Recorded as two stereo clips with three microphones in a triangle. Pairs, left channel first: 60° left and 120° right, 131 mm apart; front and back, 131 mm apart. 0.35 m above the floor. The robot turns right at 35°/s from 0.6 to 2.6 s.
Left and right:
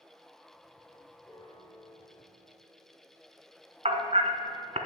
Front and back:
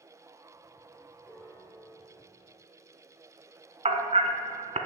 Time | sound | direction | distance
1.2 | a piano | 40° left | 1.0 m
3.9 | hammering | 150° right | 0.7 m